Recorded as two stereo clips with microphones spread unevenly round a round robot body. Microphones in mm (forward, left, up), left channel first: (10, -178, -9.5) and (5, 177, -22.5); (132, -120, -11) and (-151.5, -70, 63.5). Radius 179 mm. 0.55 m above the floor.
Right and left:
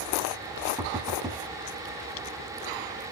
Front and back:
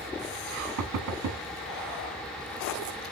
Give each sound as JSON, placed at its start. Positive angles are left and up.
{"t": 0.8, "sound": "knocking", "azimuth_deg": 160, "distance_m": 1.1}